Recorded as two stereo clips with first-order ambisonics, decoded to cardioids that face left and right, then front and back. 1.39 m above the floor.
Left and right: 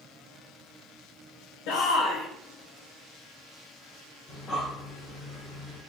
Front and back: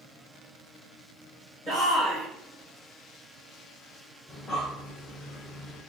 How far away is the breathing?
About 1.2 m.